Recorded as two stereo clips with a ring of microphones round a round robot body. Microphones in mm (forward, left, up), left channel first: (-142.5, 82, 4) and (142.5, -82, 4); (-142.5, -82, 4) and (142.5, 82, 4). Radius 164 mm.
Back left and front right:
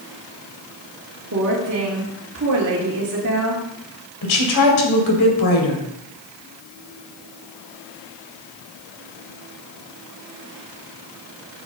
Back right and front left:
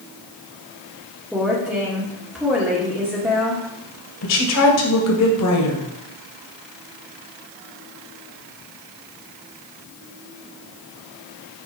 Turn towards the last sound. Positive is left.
turn(degrees=170)